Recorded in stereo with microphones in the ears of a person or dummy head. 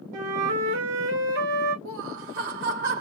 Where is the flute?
65° right (ahead or behind), 2.5 m.